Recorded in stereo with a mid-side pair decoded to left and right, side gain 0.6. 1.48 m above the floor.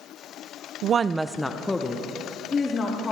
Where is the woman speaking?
60° right, 0.6 m; by 3.1 s 30° left, 3 m.